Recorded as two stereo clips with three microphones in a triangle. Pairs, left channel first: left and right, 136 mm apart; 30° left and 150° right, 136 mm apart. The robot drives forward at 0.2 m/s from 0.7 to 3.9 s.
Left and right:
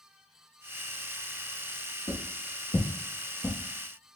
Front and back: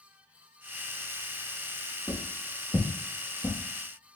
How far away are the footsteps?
About 2 m.